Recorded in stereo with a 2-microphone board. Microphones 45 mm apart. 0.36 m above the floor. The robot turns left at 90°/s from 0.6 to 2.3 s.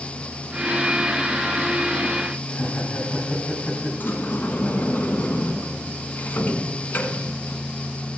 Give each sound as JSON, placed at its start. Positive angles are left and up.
{"t": 2.5, "sound": "laughter", "side_deg": 55, "distance_m": 3.0}
{"t": 4.0, "sound": "a sliding door", "side_deg": 50, "distance_m": 1.5}